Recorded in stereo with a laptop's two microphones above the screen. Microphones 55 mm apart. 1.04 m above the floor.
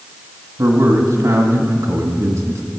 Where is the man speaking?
70° right (ahead or behind), 1.8 m.